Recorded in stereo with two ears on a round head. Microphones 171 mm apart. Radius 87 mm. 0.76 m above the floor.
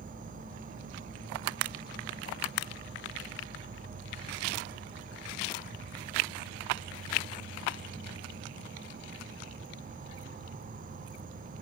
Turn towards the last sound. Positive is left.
turn(degrees=-45)  # may be behind; listen again after turning